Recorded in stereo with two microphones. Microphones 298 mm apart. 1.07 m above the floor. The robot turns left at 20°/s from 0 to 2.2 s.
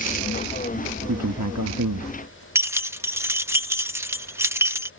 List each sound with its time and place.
1.1 s a man speaking: 70° right (ahead or behind); by 2.5 s 85° right
2.5 s keys jangling: 10° right (ahead or behind)